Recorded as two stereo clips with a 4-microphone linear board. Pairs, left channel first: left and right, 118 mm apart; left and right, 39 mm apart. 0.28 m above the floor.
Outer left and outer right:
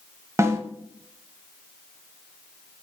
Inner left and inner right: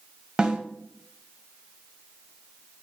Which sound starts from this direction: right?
A snare drum, at 0.4 s.